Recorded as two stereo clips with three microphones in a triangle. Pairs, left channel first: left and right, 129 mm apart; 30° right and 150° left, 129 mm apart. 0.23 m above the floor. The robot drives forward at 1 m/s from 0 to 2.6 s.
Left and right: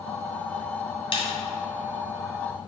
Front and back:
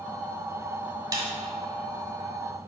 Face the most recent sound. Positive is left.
turn(degrees=150)